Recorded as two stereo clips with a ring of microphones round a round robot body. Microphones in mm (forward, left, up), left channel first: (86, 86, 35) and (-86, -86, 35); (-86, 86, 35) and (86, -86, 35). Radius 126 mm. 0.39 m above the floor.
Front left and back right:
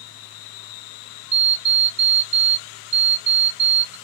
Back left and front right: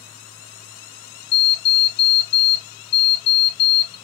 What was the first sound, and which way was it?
An alarm clock, 160° left.